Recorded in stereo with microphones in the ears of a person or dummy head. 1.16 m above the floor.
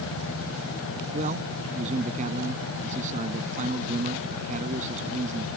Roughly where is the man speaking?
Right.